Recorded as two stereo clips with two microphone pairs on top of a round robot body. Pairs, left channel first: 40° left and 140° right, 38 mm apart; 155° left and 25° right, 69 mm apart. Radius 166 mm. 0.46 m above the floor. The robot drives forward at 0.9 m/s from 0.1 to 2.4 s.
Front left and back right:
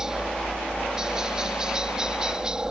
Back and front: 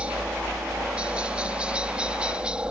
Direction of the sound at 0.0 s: 70° right.